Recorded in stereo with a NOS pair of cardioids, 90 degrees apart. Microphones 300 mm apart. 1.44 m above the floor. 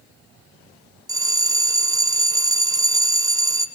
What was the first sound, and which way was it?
A bell, 10° right.